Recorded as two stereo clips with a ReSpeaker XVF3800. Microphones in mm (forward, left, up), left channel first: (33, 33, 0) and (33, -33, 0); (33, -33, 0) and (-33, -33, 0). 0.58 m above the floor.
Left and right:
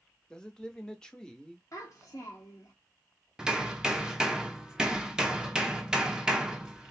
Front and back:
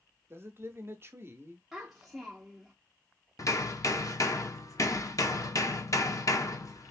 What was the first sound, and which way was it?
A man speaking, 160° left.